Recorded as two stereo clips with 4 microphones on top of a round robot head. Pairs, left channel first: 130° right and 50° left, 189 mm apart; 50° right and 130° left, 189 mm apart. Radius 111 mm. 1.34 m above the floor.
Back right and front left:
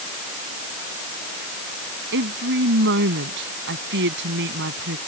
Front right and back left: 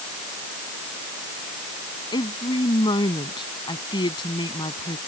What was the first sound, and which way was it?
A woman speaking, 20° left.